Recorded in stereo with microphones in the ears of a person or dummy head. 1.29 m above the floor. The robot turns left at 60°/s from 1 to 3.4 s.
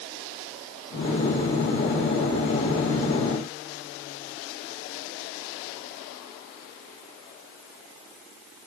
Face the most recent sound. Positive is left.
No sound to turn to.